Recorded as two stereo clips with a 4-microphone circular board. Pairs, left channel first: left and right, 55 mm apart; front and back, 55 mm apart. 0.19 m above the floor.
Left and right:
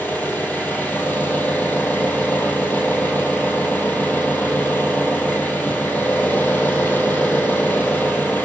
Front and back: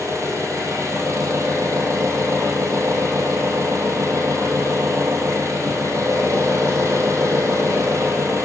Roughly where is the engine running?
Behind left.